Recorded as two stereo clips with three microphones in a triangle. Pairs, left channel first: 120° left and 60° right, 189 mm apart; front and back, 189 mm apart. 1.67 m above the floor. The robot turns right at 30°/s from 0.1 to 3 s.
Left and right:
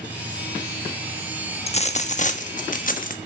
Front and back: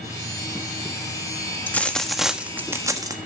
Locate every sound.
1.7 s a dropped coin: 75° left, 1.3 m; by 3.2 s 115° left, 1.3 m